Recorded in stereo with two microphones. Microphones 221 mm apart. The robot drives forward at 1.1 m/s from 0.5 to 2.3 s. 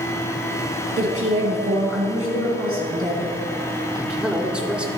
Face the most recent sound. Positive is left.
turn(degrees=-5)  # may be behind; listen again after turning